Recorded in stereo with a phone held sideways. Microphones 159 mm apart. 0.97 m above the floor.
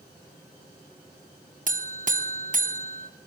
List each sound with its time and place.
1.7 s a buzzer: 50° right (ahead or behind), 0.5 m